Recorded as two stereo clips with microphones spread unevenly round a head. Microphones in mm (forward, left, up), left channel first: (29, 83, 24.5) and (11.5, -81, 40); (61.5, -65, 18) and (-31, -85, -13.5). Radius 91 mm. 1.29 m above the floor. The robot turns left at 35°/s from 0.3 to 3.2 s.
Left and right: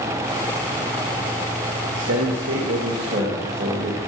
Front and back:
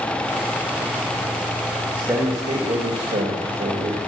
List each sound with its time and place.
1.9 s a man speaking: 95° right, 2.5 m; by 4.0 s 145° right, 2.5 m